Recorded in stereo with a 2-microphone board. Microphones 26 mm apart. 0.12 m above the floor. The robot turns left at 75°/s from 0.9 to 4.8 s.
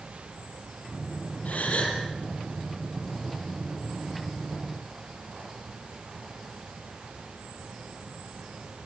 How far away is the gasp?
About 4.5 m.